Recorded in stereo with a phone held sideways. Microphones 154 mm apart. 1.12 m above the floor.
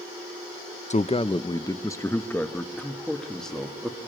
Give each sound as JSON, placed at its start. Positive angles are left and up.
{"t": 0.9, "sound": "a man speaking", "side_deg": 50, "distance_m": 0.6}